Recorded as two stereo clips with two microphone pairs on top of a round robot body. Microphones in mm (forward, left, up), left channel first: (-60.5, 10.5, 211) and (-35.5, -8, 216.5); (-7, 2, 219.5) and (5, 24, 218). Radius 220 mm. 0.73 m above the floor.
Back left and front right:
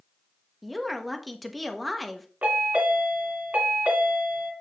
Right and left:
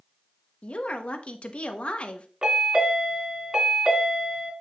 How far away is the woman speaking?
About 1.4 m.